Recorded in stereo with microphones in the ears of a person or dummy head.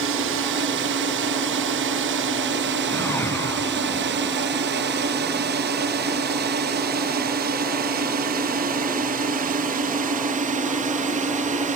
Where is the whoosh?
15° left (ahead or behind).